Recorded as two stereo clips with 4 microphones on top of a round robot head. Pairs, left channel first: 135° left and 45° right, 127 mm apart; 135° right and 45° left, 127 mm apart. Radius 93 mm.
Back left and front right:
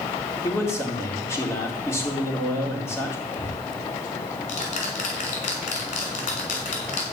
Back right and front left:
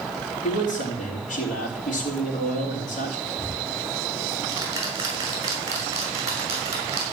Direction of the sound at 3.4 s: 110° left.